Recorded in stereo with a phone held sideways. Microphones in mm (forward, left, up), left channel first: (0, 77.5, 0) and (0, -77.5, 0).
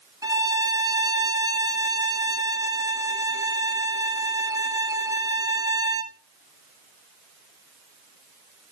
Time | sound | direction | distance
0.2 | a violin | 25° right (ahead or behind) | 0.8 m